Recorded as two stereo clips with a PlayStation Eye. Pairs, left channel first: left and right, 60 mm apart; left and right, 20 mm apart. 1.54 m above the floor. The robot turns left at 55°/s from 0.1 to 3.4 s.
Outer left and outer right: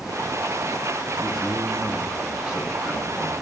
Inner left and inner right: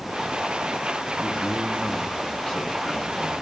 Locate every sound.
1.2 s a man speaking: 165° left, 6.5 m; by 3.4 s 45° left, 6.5 m